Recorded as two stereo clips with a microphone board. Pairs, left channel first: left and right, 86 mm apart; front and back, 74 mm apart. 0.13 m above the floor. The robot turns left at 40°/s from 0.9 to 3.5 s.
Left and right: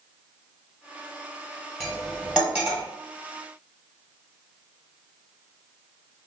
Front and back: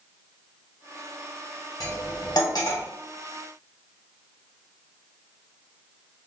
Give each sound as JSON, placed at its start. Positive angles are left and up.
{"t": 1.8, "sound": "cutlery clinking", "azimuth_deg": 10, "distance_m": 1.4}